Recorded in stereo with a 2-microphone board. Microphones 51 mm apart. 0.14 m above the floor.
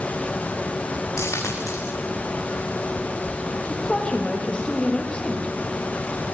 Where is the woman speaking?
25° left (ahead or behind), 5.5 m.